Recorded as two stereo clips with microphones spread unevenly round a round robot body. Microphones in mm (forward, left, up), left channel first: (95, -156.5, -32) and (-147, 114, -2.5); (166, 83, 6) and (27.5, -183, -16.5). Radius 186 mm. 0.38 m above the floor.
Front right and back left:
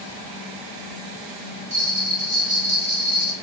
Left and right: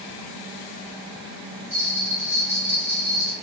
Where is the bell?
165° right, 1.3 m.